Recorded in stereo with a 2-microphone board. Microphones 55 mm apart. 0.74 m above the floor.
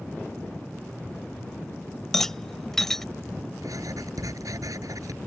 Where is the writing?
85° right.